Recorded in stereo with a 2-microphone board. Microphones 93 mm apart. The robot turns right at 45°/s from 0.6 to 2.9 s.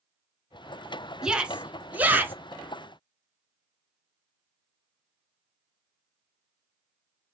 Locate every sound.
1.2 s a shout: 10° right (ahead or behind), 1.1 m; by 2.3 s 20° right (ahead or behind), 1.1 m